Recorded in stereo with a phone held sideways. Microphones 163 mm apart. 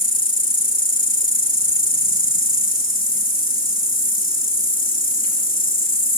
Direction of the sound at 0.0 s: 60° left (ahead or behind).